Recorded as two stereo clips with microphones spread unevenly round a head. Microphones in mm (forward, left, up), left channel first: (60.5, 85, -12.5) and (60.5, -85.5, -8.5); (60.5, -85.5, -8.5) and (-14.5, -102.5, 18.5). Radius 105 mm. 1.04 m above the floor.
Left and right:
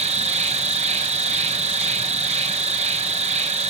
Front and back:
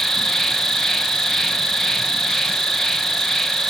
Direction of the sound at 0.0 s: 50° right.